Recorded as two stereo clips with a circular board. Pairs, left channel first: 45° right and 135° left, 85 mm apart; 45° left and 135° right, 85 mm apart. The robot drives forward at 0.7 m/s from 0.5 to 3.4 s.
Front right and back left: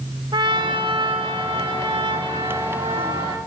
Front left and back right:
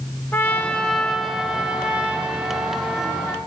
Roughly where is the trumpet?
Left.